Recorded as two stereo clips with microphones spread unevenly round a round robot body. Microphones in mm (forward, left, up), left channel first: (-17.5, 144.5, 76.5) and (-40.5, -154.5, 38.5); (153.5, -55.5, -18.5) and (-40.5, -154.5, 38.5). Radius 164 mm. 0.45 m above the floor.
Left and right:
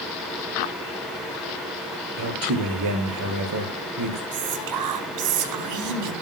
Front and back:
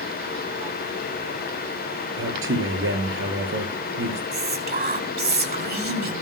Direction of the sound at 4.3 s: 105° right.